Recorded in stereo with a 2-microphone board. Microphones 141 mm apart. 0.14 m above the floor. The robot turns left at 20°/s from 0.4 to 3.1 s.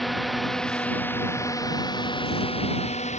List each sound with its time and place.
0.0 s a drone: centre (ahead or behind); by 3.2 s 55° left (ahead or behind)